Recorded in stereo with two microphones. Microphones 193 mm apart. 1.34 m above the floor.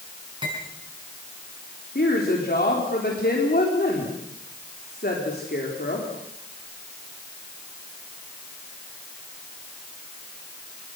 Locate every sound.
0.4 s cutlery clinking: 25° right (ahead or behind), 7.5 m
1.9 s a woman speaking: 55° left (ahead or behind), 4 m